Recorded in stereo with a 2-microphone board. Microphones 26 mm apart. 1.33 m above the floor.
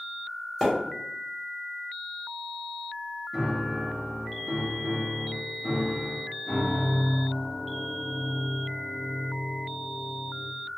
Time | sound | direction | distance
0.6 | a splash | 5° left (ahead or behind) | 1.0 m
3.3 | a piano | centre (ahead or behind) | 0.8 m